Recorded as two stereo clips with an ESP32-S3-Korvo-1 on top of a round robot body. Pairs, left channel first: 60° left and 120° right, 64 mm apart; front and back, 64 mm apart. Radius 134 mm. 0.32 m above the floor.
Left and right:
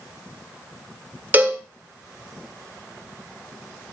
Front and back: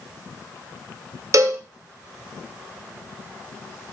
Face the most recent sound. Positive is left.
turn(degrees=180)